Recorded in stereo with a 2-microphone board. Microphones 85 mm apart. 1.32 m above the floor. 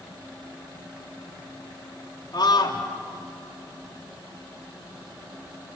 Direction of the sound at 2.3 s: 55° left (ahead or behind).